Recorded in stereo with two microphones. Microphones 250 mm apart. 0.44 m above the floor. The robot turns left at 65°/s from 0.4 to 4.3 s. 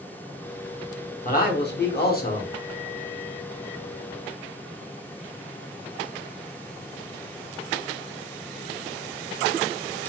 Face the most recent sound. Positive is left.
turn(degrees=-70)